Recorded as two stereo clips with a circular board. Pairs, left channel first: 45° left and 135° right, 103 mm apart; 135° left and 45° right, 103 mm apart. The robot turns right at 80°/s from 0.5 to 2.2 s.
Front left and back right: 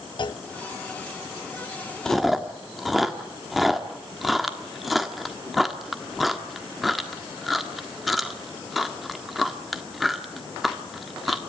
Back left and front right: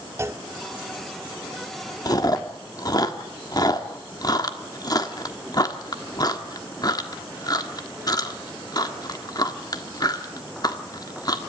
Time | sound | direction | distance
0.2 | a clunk | 15° left | 0.6 m
2.0 | chewing | 125° left | 1.5 m